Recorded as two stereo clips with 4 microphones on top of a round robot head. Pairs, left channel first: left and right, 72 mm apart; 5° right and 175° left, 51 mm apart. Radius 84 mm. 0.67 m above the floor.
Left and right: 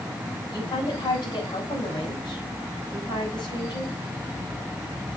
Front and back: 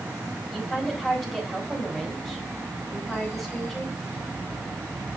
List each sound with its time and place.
0.5 s a woman speaking: 85° left, 5 m